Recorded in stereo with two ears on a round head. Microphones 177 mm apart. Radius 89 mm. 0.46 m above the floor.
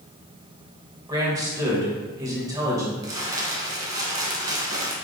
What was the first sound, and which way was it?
A man speaking, 20° right (ahead or behind).